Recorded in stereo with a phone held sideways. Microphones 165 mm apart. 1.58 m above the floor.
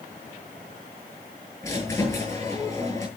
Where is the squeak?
15° left (ahead or behind), 9.5 m.